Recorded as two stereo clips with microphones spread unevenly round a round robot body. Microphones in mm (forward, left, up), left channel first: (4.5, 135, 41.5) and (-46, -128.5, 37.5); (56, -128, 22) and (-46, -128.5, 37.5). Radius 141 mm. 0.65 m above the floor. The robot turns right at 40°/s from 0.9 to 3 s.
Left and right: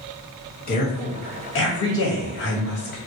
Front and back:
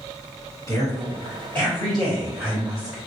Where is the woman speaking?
35° left, 1.3 m; by 3.0 s 115° left, 1.3 m.